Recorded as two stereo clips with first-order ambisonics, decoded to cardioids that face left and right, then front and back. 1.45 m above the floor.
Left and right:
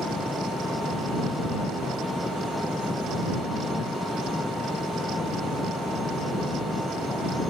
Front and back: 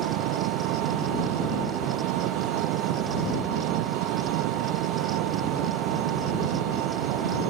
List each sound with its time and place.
0.0 s an engine running: 170° left